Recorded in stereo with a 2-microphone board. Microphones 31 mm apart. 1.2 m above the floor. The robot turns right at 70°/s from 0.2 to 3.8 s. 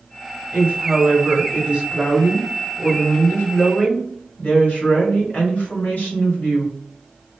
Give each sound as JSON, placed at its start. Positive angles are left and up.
{"t": 0.5, "sound": "a woman speaking", "azimuth_deg": -115, "distance_m": 2.0}